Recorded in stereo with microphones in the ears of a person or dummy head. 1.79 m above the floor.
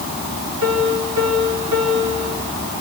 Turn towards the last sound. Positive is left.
turn(degrees=-90)